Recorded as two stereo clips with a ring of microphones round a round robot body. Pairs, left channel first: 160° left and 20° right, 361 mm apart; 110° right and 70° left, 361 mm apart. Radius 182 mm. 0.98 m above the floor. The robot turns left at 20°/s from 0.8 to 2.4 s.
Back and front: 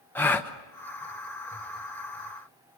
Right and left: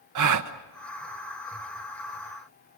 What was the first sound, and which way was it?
A gasp, 75° left.